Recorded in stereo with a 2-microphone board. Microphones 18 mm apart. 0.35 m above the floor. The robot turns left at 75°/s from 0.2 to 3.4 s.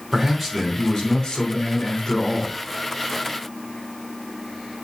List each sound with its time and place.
0.1 s a man speaking: 150° right, 3.5 m; by 2.6 s 30° left, 3.5 m